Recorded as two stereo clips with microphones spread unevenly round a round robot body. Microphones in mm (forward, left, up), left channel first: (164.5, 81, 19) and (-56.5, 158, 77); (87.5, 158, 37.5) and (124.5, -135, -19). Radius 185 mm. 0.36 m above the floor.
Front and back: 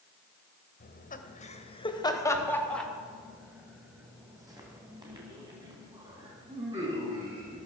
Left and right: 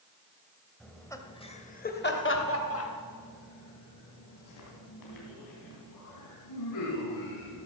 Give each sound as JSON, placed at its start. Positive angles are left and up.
{"t": 0.8, "sound": "laughter", "azimuth_deg": 0, "distance_m": 1.7}